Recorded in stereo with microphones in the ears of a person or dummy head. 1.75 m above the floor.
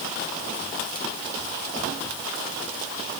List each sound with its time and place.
Only background noise.